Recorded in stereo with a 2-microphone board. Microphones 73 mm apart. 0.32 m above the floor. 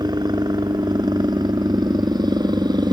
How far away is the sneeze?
I don't hear a sneeze.